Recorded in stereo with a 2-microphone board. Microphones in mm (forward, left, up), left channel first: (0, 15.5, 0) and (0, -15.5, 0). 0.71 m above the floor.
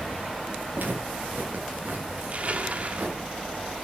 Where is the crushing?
45° right (ahead or behind), 1.8 m.